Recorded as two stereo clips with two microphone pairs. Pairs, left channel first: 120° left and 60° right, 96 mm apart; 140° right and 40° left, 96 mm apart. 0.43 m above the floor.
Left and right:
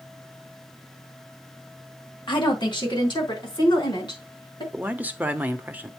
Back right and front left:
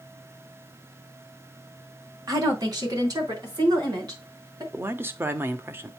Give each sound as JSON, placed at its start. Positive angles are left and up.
{"t": 2.3, "sound": "a woman speaking", "azimuth_deg": 85, "distance_m": 2.5}
{"t": 4.7, "sound": "a man speaking", "azimuth_deg": -5, "distance_m": 0.8}